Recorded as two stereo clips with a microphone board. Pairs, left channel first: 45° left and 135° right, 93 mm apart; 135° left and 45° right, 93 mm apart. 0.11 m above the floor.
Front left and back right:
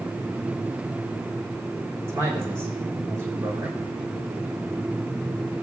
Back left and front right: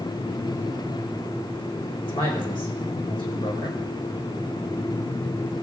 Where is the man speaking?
165° left, 5.5 m.